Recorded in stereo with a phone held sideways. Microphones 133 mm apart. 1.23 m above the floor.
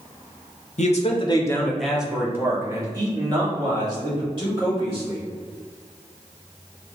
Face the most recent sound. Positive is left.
turn(degrees=-40)  # may be behind; listen again after turning